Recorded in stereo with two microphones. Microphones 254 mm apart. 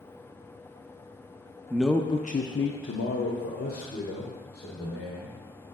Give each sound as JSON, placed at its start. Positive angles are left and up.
{"t": 1.7, "sound": "a man speaking", "side_deg": -10, "distance_m": 0.6}